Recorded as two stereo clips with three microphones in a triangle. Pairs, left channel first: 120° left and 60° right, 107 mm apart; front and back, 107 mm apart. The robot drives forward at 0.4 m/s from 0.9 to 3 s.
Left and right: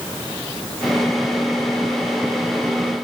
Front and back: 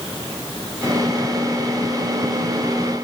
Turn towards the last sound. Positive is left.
No sound to turn to.